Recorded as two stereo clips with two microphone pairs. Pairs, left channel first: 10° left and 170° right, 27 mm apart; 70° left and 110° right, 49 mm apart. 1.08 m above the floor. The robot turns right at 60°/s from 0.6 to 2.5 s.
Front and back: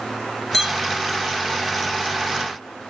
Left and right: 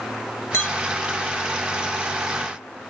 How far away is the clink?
About 1.4 m.